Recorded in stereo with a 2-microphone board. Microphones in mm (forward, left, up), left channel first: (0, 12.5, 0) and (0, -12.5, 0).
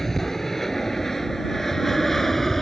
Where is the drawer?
No drawer in this recording.